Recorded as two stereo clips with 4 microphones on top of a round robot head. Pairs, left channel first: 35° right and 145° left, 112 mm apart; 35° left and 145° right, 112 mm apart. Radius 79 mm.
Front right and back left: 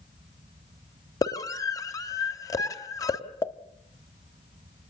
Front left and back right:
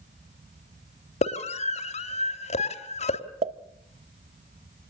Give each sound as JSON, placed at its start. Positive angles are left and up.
{"t": 1.2, "sound": "a scream", "azimuth_deg": 20, "distance_m": 3.0}
{"t": 3.4, "sound": "a pop", "azimuth_deg": -105, "distance_m": 1.2}